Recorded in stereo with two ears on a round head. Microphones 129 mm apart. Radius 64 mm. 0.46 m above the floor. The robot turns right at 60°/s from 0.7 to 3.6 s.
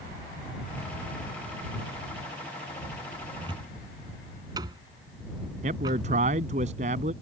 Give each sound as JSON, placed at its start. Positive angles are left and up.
{"t": 3.4, "sound": "a cupboard door", "side_deg": -40}
{"t": 5.6, "sound": "a man speaking", "side_deg": -55}